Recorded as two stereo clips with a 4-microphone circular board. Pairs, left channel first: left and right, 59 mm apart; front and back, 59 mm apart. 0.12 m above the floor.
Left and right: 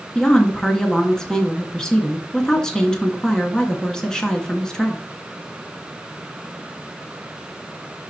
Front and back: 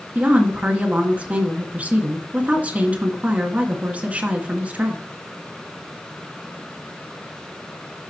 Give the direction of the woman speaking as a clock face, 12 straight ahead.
7 o'clock.